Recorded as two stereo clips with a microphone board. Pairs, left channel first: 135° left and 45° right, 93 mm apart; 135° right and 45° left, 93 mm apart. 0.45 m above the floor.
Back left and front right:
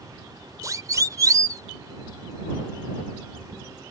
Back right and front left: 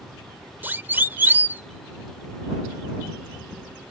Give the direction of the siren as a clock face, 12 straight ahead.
12 o'clock.